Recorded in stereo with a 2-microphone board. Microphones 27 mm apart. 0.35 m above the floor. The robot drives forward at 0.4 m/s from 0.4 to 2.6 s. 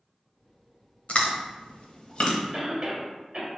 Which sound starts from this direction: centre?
A cough, at 2.5 s.